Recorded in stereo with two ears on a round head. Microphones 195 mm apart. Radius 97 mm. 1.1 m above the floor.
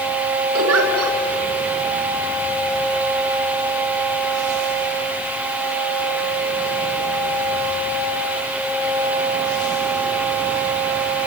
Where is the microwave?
I don't hear a microwave.